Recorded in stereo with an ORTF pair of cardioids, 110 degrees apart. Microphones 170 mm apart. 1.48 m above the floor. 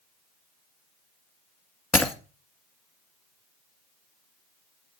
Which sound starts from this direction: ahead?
Breaking glass, at 1.9 s.